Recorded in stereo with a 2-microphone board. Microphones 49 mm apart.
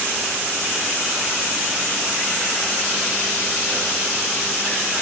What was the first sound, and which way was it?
Only background noise.